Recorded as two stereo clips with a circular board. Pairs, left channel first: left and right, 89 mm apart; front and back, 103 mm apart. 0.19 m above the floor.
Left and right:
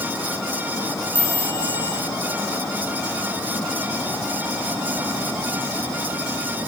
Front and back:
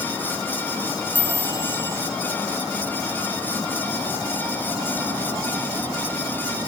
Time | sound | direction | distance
1.1 | a chime | 125° right | 2.5 m